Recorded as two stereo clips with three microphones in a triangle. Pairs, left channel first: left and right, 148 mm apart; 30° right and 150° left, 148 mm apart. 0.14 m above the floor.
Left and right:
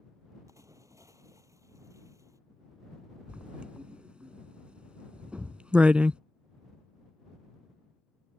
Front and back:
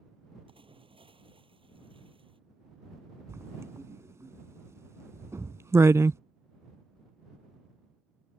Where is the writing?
165° right.